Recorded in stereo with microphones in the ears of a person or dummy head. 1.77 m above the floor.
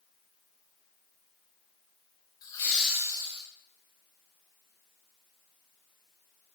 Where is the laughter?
20° left (ahead or behind), 0.8 m; by 3.4 s 25° right (ahead or behind), 0.9 m.